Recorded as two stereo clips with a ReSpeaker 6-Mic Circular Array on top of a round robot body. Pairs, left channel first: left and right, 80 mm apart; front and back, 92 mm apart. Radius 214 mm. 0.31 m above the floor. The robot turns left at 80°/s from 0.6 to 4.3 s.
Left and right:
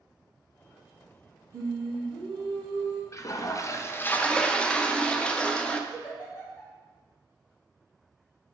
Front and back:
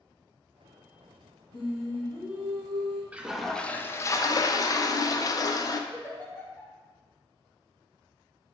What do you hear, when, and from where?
1.5 s singing: 40° right, 0.6 m; by 3.0 s 160° right, 0.6 m
3.1 s a toilet flushing: 110° left, 0.5 m; by 5.8 s 20° left, 0.5 m
5.9 s a giggle: 65° left, 2.0 m